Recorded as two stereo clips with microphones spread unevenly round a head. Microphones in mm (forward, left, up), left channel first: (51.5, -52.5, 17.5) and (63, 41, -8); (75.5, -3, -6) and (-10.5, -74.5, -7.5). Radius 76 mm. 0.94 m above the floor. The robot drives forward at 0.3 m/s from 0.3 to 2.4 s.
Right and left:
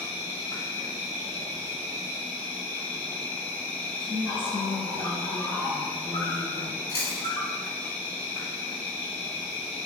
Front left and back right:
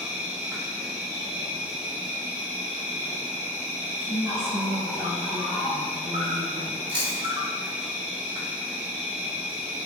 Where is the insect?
115° right, 1.2 m; by 9.8 s 150° right, 1.5 m.